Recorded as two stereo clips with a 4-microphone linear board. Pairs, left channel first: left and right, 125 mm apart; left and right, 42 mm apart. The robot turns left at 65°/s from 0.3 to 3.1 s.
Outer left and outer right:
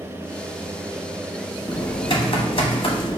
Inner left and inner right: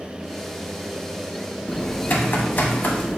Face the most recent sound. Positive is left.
turn(degrees=55)